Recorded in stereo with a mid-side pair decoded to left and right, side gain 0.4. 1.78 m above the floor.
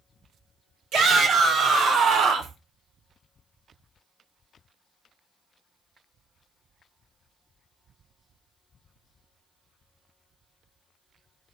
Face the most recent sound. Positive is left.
turn(degrees=-75)